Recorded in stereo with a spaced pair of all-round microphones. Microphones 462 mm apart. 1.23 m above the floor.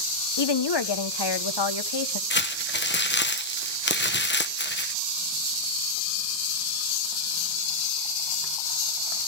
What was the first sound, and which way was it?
A woman speaking, 60° left (ahead or behind).